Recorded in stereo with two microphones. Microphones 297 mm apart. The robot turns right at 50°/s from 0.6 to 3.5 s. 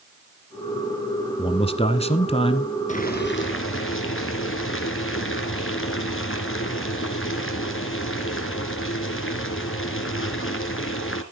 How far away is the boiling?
About 2 m.